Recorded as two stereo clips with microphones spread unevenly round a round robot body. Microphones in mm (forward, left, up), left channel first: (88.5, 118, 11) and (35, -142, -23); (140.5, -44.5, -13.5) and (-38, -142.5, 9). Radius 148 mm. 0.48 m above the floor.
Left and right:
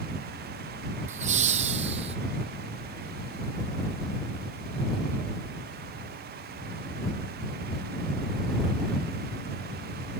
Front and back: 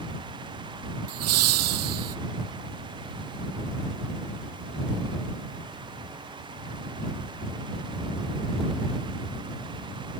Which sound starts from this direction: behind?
Laughter, at 1.1 s.